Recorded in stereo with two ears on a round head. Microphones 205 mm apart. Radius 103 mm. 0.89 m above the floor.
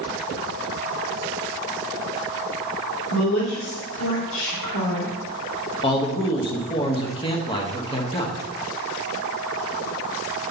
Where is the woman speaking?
80° left, 3.5 m.